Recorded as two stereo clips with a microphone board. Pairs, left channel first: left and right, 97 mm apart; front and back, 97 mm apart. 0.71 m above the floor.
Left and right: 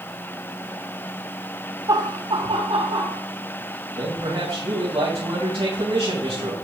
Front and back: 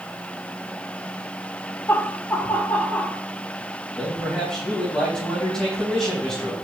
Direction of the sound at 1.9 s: 55° right.